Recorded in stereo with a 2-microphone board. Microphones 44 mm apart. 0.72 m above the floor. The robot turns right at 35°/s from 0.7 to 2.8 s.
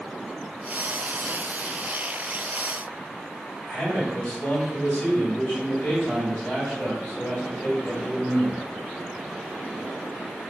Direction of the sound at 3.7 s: 40° left (ahead or behind).